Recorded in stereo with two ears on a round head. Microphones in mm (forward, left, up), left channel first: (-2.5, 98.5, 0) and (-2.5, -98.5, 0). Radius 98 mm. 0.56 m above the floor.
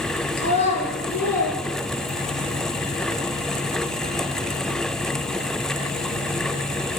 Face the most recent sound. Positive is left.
turn(degrees=40)  # may be behind; listen again after turning